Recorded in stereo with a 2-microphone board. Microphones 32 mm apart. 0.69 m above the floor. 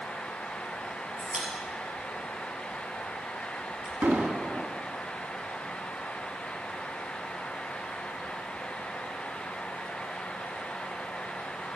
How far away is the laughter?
No laughter in this recording.